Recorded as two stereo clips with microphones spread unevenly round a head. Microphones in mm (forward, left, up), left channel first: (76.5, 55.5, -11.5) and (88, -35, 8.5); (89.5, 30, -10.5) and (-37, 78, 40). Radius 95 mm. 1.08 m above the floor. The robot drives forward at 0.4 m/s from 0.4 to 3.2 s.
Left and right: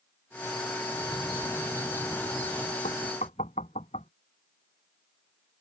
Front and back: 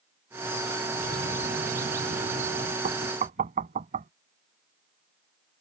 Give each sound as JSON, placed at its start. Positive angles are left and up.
{"t": 0.9, "sound": "a bird", "azimuth_deg": 175}
{"t": 2.8, "sound": "knocking", "azimuth_deg": 145}